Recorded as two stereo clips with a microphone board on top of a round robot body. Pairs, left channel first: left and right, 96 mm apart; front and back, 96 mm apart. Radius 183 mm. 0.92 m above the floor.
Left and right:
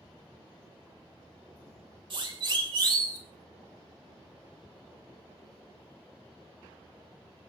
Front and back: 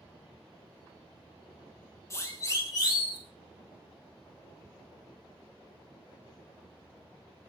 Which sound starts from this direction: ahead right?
A siren, at 2.1 s.